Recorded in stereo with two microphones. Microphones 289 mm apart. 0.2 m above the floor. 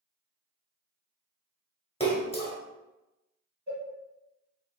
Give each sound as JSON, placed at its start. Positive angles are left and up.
{"t": 2.0, "sound": "a splash", "side_deg": 20, "distance_m": 0.9}
{"t": 3.7, "sound": "a cowbell", "side_deg": 25, "distance_m": 1.4}